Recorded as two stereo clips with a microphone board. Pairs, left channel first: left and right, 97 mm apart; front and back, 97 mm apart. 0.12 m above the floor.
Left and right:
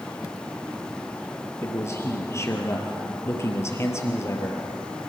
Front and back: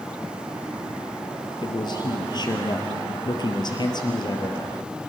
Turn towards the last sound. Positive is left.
turn(degrees=35)